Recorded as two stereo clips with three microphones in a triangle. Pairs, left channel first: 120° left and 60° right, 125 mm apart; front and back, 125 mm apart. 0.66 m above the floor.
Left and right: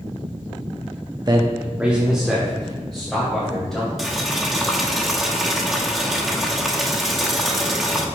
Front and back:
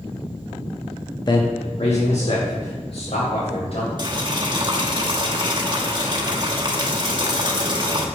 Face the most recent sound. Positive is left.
turn(degrees=-145)